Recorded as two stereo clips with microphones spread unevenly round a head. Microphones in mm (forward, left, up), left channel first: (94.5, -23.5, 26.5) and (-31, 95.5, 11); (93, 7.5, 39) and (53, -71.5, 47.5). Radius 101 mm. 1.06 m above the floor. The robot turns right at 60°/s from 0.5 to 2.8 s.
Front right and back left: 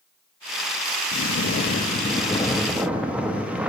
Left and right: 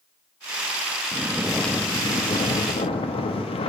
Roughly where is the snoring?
Ahead right.